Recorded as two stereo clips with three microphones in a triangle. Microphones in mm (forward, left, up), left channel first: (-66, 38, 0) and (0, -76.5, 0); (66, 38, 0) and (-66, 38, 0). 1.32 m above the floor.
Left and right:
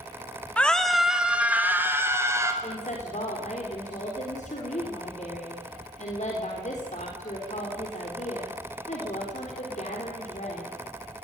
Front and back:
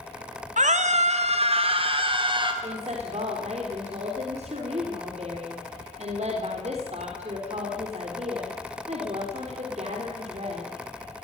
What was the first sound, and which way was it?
A scream, 160° right.